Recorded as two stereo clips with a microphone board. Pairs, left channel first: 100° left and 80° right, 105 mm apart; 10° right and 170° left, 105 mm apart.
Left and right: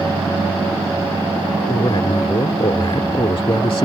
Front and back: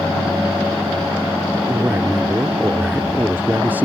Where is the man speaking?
100° left.